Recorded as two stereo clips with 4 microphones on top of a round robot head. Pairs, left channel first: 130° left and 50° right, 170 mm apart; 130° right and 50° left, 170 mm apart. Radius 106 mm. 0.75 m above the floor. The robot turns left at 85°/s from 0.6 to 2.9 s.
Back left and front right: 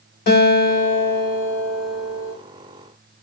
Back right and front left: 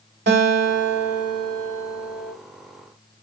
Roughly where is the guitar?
Left.